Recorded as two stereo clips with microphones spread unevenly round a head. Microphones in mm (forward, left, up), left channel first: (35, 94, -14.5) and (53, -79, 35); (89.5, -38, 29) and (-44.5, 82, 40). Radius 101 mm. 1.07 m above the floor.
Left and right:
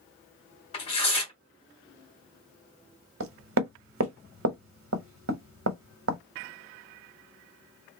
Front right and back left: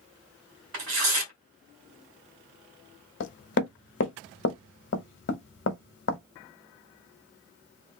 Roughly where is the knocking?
Right.